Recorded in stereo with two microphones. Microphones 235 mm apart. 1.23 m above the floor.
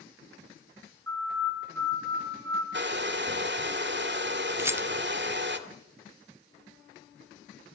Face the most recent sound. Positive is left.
turn(degrees=-10)  # may be behind; listen again after turning